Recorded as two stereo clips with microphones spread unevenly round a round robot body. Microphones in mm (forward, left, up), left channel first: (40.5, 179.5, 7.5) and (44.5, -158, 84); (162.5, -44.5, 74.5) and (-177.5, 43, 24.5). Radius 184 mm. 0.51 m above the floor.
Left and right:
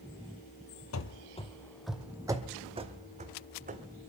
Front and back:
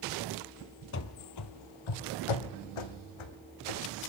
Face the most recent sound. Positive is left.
turn(degrees=-25)